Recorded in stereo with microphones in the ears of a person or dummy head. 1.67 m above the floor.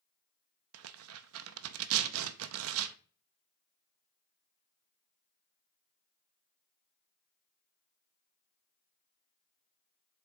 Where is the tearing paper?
75° right (ahead or behind), 0.5 m.